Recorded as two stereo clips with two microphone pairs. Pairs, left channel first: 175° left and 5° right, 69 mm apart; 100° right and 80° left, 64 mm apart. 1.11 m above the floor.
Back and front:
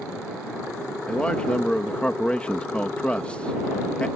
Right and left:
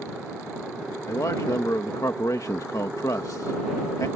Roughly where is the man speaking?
Behind right.